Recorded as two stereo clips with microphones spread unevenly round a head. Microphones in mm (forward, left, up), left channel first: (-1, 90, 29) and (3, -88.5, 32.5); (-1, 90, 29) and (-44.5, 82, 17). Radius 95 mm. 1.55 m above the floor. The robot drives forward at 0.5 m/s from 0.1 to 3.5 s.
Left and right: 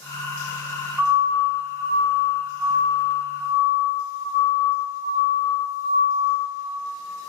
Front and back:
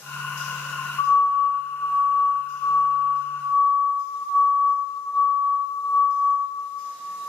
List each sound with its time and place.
1.0 s a siren: 10° right, 9 m; by 6.4 s 60° right, 7.5 m